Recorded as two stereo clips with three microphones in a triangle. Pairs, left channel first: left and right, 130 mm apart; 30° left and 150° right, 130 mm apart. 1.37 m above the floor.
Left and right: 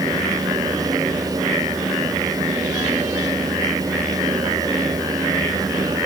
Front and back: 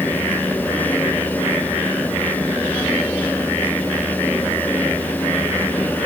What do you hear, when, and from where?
Only background noise.